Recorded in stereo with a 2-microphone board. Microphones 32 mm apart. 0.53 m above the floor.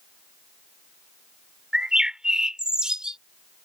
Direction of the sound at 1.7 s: 25° right (ahead or behind).